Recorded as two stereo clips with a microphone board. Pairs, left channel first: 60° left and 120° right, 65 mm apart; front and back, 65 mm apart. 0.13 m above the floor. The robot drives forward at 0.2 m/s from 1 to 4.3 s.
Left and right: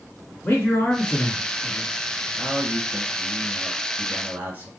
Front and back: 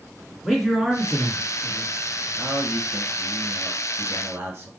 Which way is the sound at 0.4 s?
90° left.